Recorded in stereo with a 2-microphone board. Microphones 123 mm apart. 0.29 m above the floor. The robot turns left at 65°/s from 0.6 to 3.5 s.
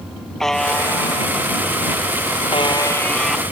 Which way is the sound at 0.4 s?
175° left.